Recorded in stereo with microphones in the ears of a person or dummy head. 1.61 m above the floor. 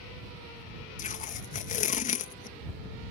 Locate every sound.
1.0 s tape being pulled: 45° left (ahead or behind)